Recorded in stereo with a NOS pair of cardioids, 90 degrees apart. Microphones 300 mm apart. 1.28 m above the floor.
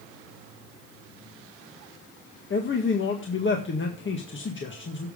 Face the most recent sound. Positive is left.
turn(degrees=40)